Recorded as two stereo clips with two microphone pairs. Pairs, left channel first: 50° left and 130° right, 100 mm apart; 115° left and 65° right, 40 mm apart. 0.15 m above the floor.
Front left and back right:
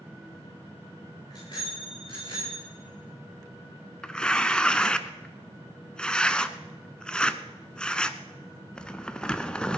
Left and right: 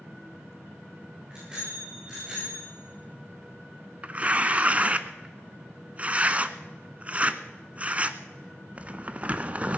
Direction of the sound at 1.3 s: 5° left.